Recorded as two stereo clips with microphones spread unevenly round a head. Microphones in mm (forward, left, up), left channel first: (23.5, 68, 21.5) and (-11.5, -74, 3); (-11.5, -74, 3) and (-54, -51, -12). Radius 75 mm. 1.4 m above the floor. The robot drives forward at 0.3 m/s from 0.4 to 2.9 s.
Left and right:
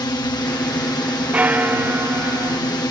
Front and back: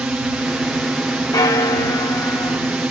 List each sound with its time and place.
0.0 s a drone: 115° left; by 2.9 s 120° left
1.3 s a bell: 20° right; by 2.6 s 30° right